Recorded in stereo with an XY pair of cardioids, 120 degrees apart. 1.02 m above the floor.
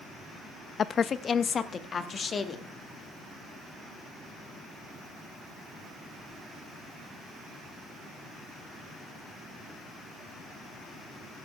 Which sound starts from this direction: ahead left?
A woman speaking, at 0.8 s.